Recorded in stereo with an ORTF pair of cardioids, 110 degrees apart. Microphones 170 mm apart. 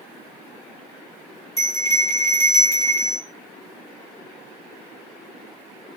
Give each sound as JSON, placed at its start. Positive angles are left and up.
{"t": 1.6, "sound": "a bell", "azimuth_deg": 15, "distance_m": 2.0}